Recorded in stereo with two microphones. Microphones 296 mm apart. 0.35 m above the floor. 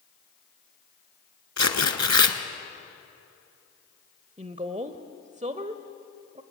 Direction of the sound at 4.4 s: 25° right (ahead or behind).